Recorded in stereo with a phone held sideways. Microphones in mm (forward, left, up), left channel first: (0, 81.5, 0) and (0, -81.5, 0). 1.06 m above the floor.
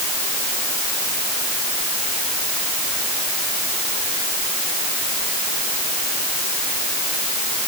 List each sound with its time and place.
Only background noise.